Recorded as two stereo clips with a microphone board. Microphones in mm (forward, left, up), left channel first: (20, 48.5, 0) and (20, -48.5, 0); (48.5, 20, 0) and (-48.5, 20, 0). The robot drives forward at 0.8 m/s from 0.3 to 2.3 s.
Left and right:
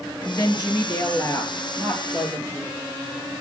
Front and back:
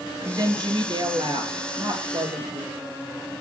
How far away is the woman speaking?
About 2.5 m.